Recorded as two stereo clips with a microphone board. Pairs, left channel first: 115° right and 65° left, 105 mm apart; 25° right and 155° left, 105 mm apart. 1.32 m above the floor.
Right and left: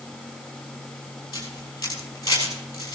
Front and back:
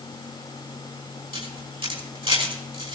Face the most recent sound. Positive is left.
turn(degrees=-170)